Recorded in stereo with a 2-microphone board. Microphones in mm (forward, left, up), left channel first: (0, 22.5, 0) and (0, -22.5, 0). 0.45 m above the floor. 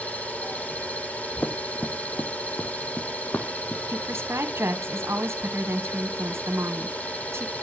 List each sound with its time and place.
0.0 s an engine running: 35° left (ahead or behind), 7 m
1.4 s running footsteps: 45° left (ahead or behind), 1.7 m; by 3.8 s 55° left (ahead or behind), 3 m
3.9 s a woman speaking: 70° right (ahead or behind), 3 m